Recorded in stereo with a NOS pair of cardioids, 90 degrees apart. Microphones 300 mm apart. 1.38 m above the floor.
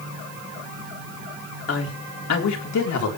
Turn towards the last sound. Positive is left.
turn(degrees=65)